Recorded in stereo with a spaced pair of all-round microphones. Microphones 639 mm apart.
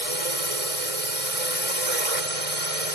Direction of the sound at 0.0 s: 60° right (ahead or behind).